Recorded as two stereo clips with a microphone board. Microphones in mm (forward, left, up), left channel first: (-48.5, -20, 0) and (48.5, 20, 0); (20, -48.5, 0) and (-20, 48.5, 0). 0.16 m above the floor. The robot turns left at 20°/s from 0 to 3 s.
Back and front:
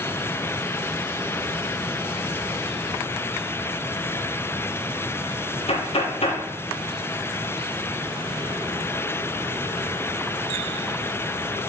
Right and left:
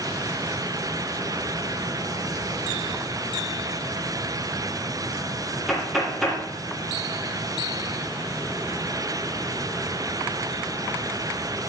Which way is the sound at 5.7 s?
160° right.